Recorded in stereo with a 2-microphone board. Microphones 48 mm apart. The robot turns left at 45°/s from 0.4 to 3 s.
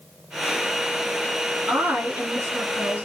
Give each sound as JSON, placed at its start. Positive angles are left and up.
{"t": 1.7, "sound": "a woman speaking", "azimuth_deg": -85, "distance_m": 2.5}